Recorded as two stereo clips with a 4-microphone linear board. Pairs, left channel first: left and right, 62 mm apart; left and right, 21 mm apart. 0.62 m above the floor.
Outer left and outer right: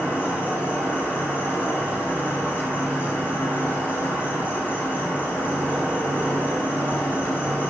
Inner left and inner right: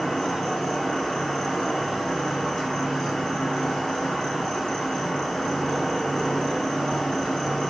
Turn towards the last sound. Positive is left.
turn(degrees=35)  # may be behind; listen again after turning